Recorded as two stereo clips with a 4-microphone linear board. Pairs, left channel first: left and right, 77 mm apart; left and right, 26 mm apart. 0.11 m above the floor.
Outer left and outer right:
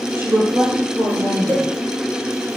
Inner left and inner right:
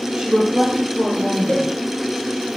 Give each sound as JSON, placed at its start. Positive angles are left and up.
{"t": 0.2, "sound": "a woman speaking", "side_deg": -30, "distance_m": 3.0}
{"t": 1.5, "sound": "a cowbell", "side_deg": 30, "distance_m": 1.1}